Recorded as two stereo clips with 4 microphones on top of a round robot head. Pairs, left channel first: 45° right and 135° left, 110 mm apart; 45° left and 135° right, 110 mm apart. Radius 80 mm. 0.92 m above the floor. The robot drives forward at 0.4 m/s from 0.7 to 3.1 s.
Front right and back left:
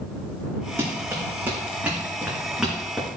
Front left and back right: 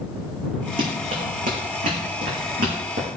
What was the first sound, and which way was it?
Running footsteps, 155° right.